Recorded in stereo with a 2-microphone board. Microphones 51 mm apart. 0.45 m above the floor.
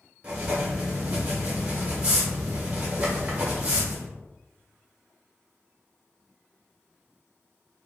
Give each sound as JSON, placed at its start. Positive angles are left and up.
{"t": 0.2, "sound": "writing", "side_deg": -25, "distance_m": 1.1}